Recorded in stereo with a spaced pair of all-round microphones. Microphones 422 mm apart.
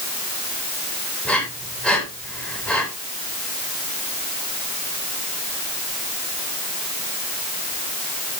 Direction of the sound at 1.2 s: Centre (ahead or behind).